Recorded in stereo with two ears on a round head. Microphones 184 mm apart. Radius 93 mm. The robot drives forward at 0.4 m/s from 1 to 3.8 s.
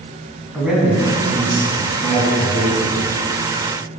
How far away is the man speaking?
About 3.5 m.